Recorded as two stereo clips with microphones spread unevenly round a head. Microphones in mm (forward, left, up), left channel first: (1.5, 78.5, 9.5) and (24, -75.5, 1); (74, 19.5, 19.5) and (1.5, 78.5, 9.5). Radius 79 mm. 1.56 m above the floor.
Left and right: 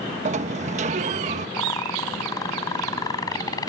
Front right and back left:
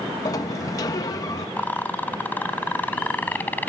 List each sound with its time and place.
0.2 s a sliding door: 65° right
1.6 s a rattle: 30° left